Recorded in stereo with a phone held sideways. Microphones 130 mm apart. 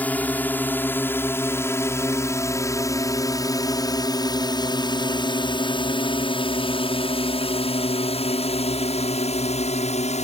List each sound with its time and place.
0.0 s a drone: 10° left (ahead or behind); by 10.3 s 60° left (ahead or behind)